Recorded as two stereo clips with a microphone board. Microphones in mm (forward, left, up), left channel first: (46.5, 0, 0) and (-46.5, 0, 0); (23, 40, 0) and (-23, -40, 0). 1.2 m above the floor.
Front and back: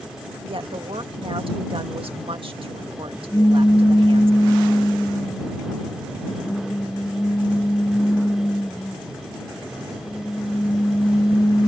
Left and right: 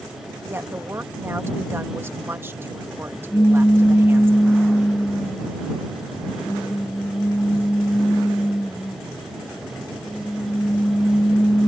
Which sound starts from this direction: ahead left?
A pop, at 3.3 s.